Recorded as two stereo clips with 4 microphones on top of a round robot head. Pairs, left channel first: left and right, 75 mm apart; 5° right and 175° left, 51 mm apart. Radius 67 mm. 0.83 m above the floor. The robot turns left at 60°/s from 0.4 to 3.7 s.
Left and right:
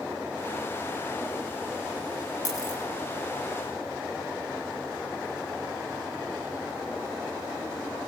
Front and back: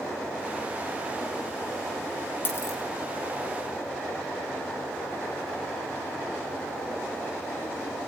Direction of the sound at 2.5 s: 45° left.